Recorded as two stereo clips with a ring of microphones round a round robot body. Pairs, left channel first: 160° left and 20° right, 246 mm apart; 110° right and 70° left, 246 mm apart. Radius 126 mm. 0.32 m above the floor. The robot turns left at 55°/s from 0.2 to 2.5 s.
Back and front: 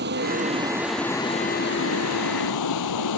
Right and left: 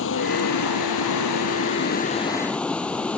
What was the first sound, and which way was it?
Running water, 70° right.